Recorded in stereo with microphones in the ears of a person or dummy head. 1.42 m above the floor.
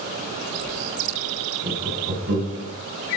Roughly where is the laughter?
Right.